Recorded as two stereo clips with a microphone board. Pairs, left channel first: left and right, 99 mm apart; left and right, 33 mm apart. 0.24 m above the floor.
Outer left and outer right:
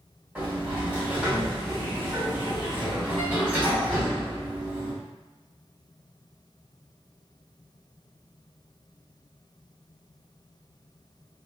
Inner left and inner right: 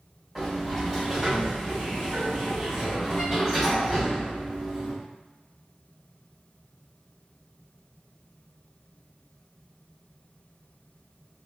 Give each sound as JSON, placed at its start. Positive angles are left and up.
{"t": 0.3, "sound": "a sliding door", "side_deg": -10, "distance_m": 1.7}